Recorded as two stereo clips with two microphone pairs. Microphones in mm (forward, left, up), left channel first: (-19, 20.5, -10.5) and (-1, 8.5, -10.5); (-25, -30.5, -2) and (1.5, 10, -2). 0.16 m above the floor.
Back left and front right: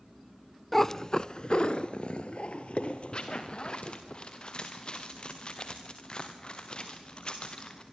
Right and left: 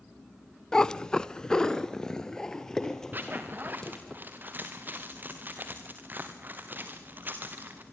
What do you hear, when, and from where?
0.7 s a cat meowing: 160° right, 0.6 m; by 4.1 s 160° left, 3 m
3.1 s a zipper: 105° left, 3 m